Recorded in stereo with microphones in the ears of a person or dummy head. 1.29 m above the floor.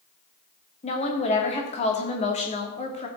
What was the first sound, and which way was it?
A woman speaking, 30° left (ahead or behind).